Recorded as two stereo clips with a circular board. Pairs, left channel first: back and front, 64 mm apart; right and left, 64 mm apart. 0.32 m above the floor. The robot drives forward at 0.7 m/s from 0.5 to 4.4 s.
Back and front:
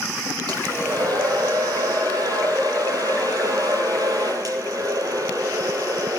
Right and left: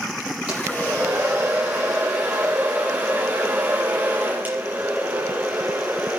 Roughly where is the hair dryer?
Ahead.